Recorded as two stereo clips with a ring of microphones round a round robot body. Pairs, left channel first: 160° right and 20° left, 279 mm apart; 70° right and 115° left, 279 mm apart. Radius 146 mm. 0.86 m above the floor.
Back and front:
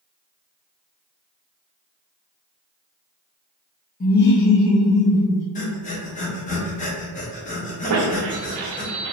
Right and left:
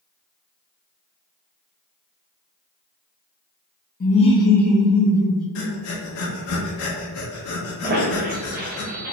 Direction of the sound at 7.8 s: 55° left.